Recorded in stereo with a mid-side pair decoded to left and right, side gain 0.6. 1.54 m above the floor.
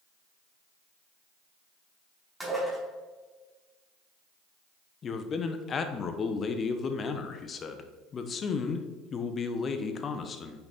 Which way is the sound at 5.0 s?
35° left.